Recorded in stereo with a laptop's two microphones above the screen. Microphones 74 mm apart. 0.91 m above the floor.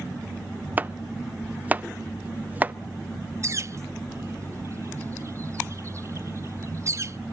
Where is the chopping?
25° right (ahead or behind), 0.6 m.